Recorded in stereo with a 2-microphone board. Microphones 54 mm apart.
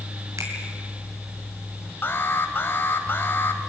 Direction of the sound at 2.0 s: 45° left (ahead or behind).